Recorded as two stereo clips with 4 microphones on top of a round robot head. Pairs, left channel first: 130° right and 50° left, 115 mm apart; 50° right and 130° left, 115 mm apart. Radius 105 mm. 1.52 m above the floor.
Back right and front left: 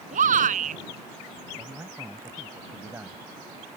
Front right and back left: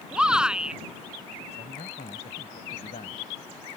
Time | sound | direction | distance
0.1 | a shout | 45° left | ?
1.5 | a man speaking | 20° right | ?